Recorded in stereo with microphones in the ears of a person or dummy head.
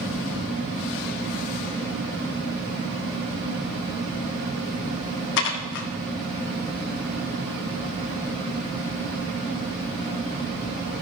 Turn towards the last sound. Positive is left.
turn(degrees=60)  # may be behind; listen again after turning